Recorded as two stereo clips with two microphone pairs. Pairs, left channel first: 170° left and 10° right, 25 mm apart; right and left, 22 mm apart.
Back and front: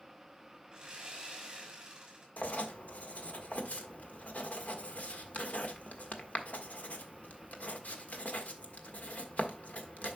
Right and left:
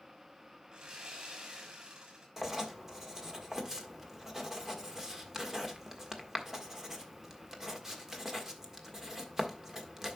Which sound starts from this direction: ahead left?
Sawing, at 0.7 s.